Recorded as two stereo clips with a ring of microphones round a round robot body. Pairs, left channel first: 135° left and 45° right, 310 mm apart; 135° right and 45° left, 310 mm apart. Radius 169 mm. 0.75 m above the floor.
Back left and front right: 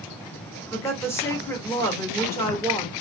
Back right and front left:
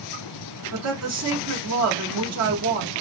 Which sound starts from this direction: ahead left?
A woman speaking, at 0.7 s.